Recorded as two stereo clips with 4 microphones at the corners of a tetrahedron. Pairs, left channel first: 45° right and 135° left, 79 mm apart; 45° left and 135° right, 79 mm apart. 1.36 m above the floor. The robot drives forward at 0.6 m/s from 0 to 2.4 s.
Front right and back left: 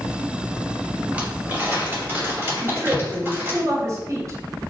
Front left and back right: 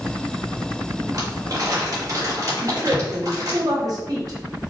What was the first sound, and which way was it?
Crumpling, 155° right.